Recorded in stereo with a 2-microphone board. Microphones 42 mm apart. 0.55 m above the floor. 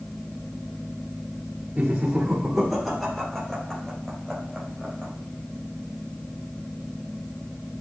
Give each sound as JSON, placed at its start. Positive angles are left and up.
{"t": 1.8, "sound": "laughter", "side_deg": -25, "distance_m": 1.6}